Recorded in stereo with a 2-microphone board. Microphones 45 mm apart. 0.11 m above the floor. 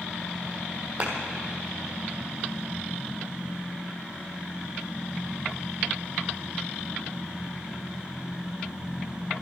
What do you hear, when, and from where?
1.0 s a clap: 35° right (ahead or behind), 2.5 m